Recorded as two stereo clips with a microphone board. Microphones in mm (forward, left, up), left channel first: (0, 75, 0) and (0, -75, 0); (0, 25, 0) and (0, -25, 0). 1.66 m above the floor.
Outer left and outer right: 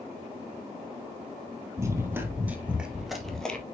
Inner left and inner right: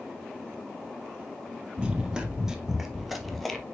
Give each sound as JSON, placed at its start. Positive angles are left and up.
{"t": 1.8, "sound": "running footsteps", "side_deg": -20, "distance_m": 1.9}